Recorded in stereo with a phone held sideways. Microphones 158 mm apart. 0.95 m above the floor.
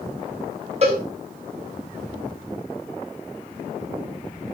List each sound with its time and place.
0.8 s a cowbell: 45° right (ahead or behind), 4 m